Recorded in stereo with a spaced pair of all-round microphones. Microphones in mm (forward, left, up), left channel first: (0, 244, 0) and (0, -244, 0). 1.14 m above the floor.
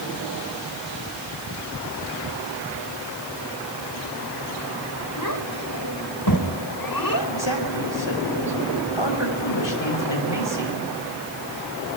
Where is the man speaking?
60° left (ahead or behind), 6.5 m.